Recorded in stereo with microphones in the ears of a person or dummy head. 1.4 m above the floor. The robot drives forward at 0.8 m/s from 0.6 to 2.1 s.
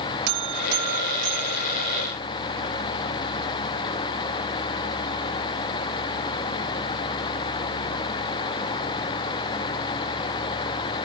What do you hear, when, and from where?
0.3 s a buzzer: 60° right (ahead or behind), 1.2 m; by 2.1 s 30° right (ahead or behind), 2.0 m